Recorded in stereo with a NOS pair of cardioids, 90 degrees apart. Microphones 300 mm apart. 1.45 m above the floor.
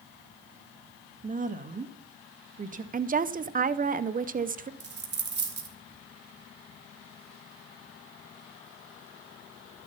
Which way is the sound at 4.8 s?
35° right.